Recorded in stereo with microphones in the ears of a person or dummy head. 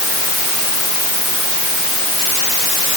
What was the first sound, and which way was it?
Only background noise.